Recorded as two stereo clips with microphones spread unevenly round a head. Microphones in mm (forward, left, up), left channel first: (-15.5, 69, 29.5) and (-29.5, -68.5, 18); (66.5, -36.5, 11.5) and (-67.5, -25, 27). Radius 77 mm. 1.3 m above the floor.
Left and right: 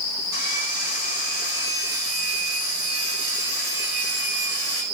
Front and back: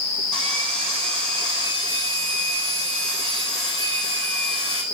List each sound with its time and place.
0.3 s sawing: 90° right, 9.5 m